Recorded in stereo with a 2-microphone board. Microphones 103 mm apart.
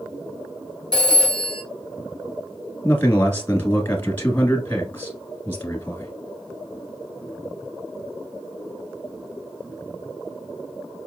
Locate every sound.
0.9 s a phone ringing: 45° right (ahead or behind), 1.5 m
2.8 s a man speaking: 20° left (ahead or behind), 1.1 m